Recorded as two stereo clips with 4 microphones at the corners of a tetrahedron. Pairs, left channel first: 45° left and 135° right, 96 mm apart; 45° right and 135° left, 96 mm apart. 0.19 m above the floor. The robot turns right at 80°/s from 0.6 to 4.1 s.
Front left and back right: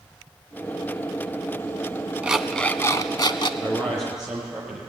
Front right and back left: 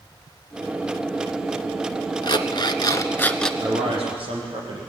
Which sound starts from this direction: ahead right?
An alarm clock, at 2.2 s.